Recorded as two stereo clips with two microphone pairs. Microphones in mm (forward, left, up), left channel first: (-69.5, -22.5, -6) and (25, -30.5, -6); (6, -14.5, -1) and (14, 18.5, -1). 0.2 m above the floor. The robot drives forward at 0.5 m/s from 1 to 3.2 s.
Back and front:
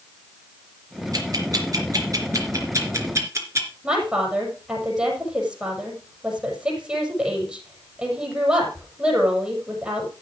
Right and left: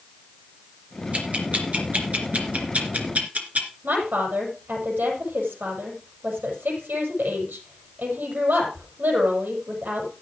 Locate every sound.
1.1 s ticking: 35° left, 4 m; by 3.7 s 50° left, 3 m
3.8 s a woman speaking: 75° left, 6.5 m